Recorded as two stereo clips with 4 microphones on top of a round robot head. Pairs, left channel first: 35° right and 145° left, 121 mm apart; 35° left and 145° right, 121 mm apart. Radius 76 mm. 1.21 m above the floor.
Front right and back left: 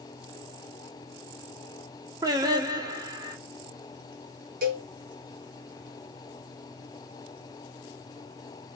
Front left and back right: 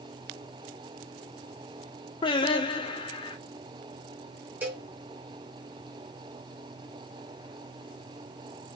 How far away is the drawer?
No drawer in this recording.